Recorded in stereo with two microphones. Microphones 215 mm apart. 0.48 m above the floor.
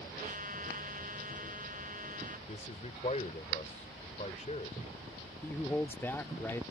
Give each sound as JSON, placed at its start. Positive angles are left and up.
{"t": 0.2, "sound": "a trumpet", "side_deg": -40}
{"t": 2.5, "sound": "a man speaking", "side_deg": 35}
{"t": 5.4, "sound": "a man speaking", "side_deg": 10}